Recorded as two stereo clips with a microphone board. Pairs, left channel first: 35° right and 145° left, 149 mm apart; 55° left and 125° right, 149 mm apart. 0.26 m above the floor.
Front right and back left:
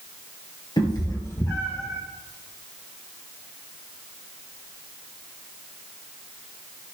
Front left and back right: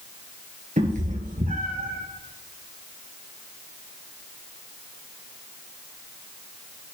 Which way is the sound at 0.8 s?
95° right.